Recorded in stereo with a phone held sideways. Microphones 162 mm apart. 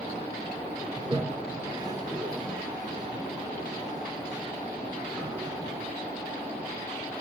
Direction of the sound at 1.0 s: 25° right (ahead or behind).